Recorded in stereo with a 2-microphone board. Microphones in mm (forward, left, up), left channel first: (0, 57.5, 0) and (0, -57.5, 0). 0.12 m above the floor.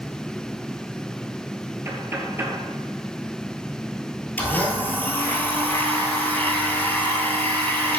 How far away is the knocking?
About 1.8 m.